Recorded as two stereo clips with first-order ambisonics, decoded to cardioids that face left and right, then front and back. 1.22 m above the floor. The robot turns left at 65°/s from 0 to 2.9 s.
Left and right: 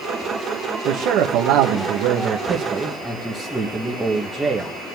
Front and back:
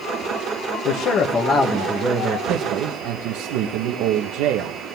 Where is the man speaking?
40° right, 1.7 m; by 4.8 s 175° right, 1.7 m.